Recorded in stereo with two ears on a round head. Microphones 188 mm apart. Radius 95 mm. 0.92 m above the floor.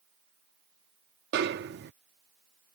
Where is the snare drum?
50° right (ahead or behind).